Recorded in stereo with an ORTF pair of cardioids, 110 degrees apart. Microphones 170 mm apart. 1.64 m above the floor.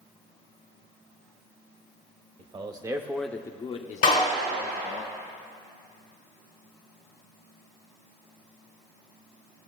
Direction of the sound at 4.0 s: 60° left.